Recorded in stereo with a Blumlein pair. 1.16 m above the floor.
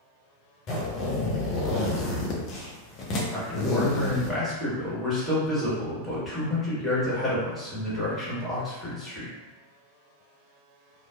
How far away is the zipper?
About 0.5 m.